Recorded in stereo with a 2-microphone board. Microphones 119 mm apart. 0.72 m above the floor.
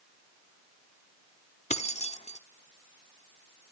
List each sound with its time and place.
1.7 s keys jangling: 70° left (ahead or behind), 1.0 m